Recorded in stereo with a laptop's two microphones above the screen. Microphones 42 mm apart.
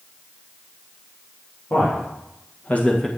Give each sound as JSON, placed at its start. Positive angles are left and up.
{"t": 1.7, "sound": "a man speaking", "side_deg": 65, "distance_m": 2.0}